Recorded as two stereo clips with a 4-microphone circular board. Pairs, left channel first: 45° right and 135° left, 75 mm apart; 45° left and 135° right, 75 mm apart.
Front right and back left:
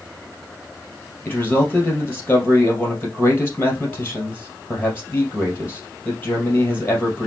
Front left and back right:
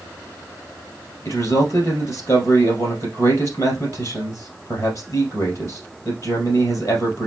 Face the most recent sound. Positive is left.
turn(degrees=15)